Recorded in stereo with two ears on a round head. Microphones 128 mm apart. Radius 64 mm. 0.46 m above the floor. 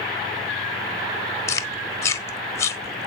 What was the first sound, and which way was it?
Chewing, 20° left (ahead or behind).